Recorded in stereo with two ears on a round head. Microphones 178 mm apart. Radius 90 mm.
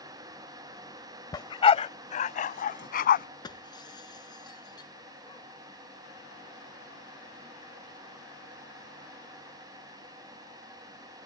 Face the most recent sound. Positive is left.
turn(degrees=20)  # may be behind; listen again after turning